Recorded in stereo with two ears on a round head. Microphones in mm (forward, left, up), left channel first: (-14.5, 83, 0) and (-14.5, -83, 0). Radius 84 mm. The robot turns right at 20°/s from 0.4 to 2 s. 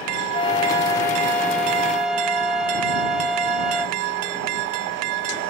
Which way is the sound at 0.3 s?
150° left.